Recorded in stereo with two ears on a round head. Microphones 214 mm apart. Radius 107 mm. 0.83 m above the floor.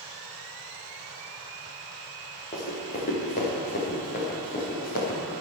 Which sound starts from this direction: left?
Running footsteps, at 2.5 s.